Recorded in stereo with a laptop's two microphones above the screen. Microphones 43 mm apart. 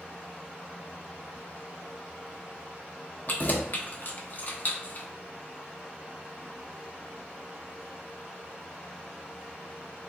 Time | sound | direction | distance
3.3 | keys jangling | 45° left (ahead or behind) | 0.9 m